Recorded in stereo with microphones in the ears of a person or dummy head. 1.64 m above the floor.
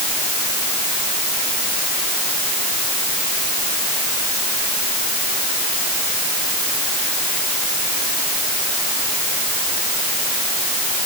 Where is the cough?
I don't hear a cough.